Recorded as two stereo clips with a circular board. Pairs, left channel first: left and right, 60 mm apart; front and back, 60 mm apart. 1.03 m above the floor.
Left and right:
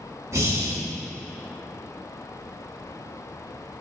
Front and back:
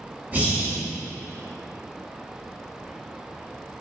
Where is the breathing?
120° right, 1.8 m.